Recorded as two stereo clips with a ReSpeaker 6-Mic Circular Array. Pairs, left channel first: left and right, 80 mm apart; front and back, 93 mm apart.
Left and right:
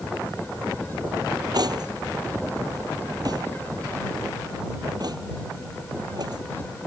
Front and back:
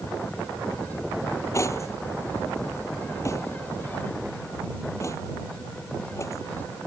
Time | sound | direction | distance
1.5 | cutlery clinking | 60° right | ?